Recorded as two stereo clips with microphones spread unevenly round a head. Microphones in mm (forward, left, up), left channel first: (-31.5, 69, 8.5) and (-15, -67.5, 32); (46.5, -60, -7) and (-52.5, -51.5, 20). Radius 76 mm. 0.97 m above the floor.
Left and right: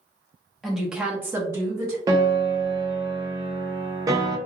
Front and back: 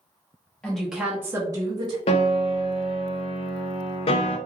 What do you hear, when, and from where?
0.6 s a woman speaking: 25° left, 0.8 m; by 2.0 s 150° right, 1.0 m
2.1 s a piano: 15° right, 0.5 m